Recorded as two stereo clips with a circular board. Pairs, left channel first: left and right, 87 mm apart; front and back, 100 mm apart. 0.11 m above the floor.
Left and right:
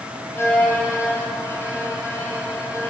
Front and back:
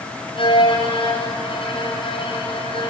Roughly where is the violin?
Ahead left.